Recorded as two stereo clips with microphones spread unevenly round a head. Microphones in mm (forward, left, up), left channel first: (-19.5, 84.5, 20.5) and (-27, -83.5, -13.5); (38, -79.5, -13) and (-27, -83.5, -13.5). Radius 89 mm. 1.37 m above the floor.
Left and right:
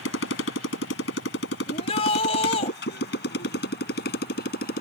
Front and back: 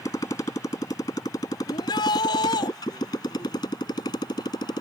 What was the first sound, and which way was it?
A motorcycle, 70° left.